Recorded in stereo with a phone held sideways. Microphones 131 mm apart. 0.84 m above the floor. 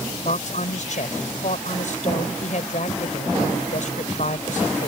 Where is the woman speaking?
65° left (ahead or behind).